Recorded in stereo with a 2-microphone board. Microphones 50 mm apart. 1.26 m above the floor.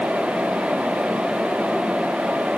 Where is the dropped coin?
I don't hear a dropped coin.